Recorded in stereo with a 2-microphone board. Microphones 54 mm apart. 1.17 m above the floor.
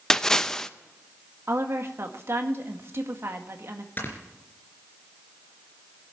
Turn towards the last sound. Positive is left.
turn(degrees=40)  # may be behind; listen again after turning